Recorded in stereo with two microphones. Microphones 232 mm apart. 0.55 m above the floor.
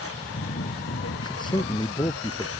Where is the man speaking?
20° left (ahead or behind).